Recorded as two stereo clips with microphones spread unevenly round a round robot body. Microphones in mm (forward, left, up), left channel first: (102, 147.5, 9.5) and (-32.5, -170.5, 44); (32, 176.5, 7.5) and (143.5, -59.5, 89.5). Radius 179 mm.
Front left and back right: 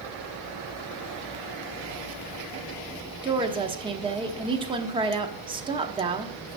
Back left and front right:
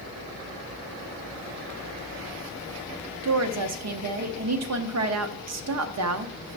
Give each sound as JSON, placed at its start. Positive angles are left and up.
{"t": 3.2, "sound": "a woman speaking", "azimuth_deg": -35, "distance_m": 1.0}